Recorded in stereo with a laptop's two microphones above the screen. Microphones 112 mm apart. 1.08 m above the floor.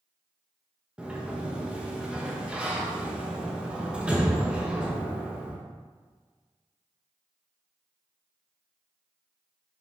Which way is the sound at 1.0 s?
10° right (ahead or behind).